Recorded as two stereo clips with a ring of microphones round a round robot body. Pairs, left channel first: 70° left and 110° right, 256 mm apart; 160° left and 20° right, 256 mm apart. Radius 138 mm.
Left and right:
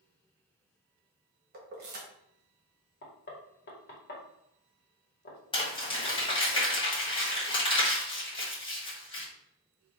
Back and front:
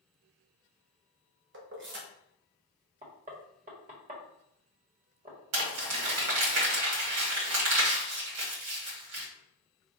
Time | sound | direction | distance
1.5 | keys jangling | 65° right | 1.3 m
3.0 | knocking | 30° left | 1.6 m
5.5 | crumpling | straight ahead | 2 m